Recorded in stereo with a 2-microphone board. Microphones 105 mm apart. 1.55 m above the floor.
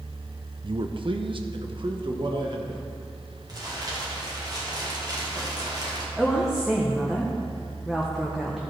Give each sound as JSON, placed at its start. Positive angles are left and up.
{"t": 0.6, "sound": "a man speaking", "side_deg": -50, "distance_m": 0.5}
{"t": 3.5, "sound": "crumpling", "side_deg": -40, "distance_m": 2.0}
{"t": 6.2, "sound": "a woman speaking", "side_deg": 0, "distance_m": 1.1}